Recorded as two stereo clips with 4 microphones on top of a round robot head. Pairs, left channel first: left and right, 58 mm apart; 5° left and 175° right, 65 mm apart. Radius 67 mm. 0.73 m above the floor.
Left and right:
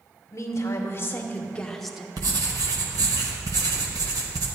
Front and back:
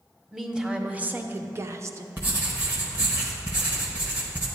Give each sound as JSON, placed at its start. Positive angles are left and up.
{"t": 0.3, "sound": "a woman speaking", "azimuth_deg": 105, "distance_m": 1.0}
{"t": 2.2, "sound": "writing", "azimuth_deg": -105, "distance_m": 0.6}